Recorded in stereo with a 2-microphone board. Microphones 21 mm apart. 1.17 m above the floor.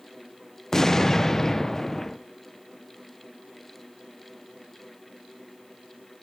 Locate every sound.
0.7 s an explosion: 15° left (ahead or behind), 0.5 m